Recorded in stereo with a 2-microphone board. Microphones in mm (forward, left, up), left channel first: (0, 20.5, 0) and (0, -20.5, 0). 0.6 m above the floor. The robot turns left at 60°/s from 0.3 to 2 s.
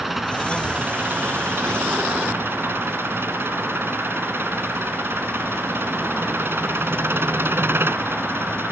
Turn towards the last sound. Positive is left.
turn(degrees=-110)